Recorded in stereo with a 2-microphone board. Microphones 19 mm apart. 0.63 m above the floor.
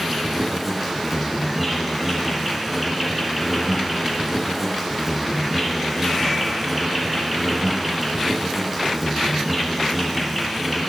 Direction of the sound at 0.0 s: 10° right (ahead or behind).